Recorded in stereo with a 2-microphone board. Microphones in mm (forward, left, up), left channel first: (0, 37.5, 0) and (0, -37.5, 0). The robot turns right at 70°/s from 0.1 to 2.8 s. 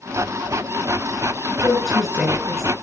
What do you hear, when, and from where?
1.6 s a woman speaking: 25° left (ahead or behind), 7 m; by 2.7 s 55° right (ahead or behind), 7 m